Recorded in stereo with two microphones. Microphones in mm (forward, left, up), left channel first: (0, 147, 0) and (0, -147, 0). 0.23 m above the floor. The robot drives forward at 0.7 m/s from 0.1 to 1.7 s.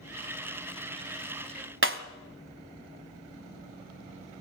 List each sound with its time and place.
1.8 s breaking glass: 45° right (ahead or behind), 1.1 m